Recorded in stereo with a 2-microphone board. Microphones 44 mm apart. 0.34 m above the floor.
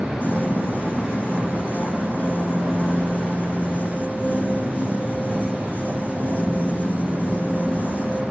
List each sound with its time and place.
0.2 s a piano: 45° left (ahead or behind), 3.5 m